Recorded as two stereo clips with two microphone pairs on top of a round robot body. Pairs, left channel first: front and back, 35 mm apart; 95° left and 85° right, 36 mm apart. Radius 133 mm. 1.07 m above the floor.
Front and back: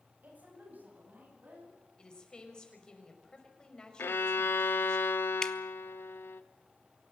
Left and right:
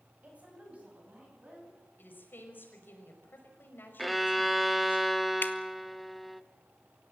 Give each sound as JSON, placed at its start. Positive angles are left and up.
{"t": 0.2, "sound": "a woman speaking", "azimuth_deg": -140, "distance_m": 8.5}
{"t": 2.0, "sound": "a woman speaking", "azimuth_deg": 70, "distance_m": 5.5}
{"t": 4.0, "sound": "a violin", "azimuth_deg": 5, "distance_m": 0.7}
{"t": 5.4, "sound": "dripping", "azimuth_deg": 70, "distance_m": 1.4}